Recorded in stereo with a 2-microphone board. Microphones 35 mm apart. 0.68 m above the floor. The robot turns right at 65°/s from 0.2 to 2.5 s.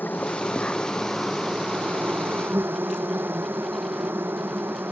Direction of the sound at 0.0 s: 115° left.